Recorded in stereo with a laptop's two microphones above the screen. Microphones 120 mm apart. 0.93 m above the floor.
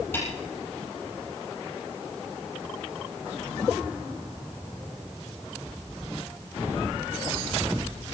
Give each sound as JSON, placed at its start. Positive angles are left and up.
{"t": 0.1, "sound": "a snare drum", "side_deg": 20, "distance_m": 6.0}